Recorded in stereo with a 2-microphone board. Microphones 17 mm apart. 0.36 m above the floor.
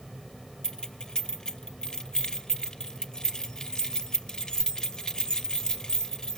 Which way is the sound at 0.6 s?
50° left (ahead or behind).